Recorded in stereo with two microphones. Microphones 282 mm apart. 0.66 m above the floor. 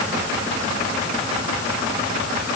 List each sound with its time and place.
Only background noise.